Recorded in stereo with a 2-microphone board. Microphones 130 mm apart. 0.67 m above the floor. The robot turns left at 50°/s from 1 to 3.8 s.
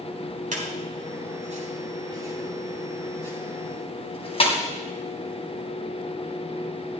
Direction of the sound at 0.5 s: 85° right.